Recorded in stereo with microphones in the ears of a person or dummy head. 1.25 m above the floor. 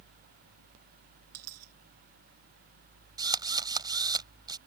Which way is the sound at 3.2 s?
20° right (ahead or behind).